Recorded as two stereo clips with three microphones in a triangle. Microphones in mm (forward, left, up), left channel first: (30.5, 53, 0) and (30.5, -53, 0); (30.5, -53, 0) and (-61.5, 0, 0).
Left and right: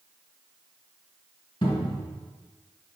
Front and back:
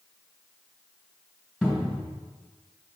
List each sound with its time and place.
1.6 s a cupboard door: 65° left, 3 m